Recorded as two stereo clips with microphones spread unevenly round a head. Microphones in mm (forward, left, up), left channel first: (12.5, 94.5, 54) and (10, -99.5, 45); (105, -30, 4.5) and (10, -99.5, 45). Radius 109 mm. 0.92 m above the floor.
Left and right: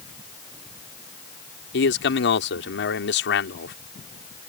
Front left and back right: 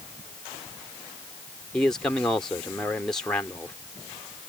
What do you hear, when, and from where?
1.7 s a man speaking: 120° left